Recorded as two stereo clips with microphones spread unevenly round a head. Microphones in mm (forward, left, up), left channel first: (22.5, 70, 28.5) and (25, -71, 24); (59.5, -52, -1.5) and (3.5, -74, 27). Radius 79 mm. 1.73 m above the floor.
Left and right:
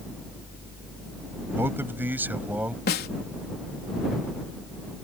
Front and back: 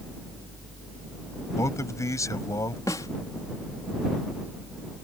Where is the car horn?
No car horn in this recording.